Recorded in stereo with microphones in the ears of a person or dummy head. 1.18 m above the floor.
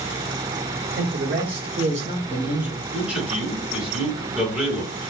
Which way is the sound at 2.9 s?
10° right (ahead or behind).